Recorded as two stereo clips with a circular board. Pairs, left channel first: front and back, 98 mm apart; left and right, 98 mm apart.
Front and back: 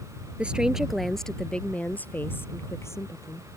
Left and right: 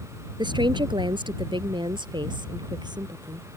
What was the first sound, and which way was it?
A woman speaking, 105° right.